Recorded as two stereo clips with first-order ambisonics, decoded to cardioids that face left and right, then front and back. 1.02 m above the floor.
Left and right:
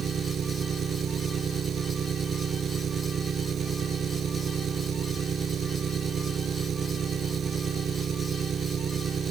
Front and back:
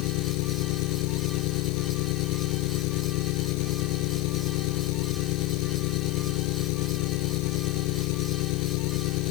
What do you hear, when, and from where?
0.0 s an engine running: 25° right